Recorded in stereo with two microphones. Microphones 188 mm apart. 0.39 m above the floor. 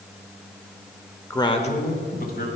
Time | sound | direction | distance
1.3 | a man speaking | 15° left (ahead or behind) | 0.9 m